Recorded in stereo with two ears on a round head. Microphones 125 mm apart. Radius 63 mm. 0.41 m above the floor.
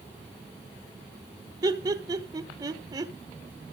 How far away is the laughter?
About 1.1 m.